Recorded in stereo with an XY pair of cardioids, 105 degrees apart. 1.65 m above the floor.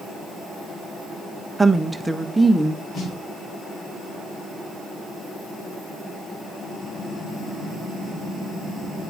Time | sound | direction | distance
1.6 | a woman speaking | 15° right | 1.0 m
2.9 | a snare drum | 65° left | 8.5 m